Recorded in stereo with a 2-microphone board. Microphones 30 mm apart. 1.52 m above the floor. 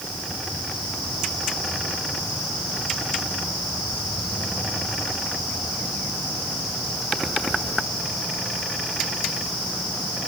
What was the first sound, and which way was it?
Only background noise.